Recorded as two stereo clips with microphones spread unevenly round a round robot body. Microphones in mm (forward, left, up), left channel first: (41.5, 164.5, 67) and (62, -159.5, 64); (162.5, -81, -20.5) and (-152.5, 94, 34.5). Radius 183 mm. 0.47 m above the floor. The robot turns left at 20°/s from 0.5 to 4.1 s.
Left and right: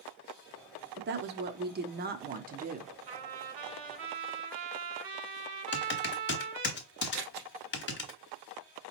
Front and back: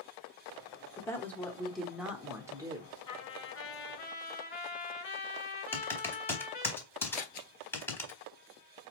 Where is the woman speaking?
90° right, 0.8 m; by 3.0 s 125° right, 0.8 m.